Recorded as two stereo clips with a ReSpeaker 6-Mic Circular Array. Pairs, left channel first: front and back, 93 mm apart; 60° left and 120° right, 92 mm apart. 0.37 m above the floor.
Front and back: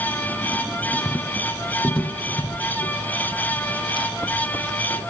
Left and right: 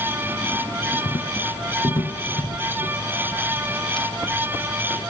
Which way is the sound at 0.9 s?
80° left.